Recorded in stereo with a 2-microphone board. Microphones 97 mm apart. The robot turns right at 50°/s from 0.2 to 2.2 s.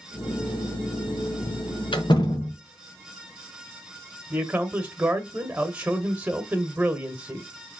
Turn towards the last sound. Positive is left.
turn(degrees=-15)  # may be behind; listen again after turning